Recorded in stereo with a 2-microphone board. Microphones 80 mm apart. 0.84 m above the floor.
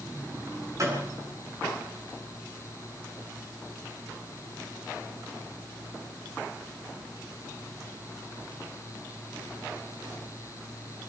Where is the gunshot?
40° right (ahead or behind), 8 m.